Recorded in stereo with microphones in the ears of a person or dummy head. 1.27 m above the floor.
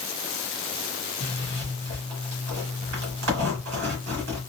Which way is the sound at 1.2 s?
55° right (ahead or behind).